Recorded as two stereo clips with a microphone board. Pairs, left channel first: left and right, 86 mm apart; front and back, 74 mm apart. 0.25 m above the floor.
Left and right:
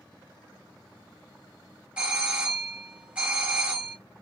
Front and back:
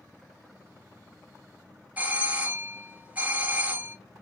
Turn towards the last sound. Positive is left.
turn(degrees=-145)